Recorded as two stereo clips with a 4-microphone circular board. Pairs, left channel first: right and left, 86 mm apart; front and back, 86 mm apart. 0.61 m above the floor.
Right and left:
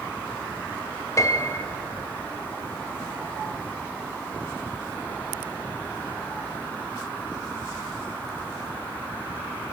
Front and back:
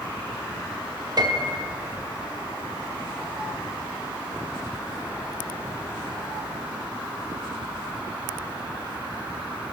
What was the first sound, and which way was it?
A piano, 140° right.